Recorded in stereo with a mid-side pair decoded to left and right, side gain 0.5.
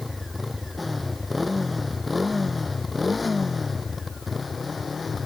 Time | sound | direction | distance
0.0 | a motorcycle | 10° left | ?